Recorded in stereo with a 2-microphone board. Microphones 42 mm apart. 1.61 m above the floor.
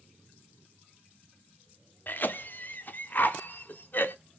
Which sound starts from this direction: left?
A cough, at 2.1 s.